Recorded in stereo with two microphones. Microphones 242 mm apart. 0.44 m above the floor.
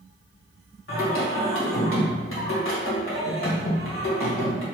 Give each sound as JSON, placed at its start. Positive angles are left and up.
{"t": 0.9, "sound": "singing", "side_deg": 55, "distance_m": 1.6}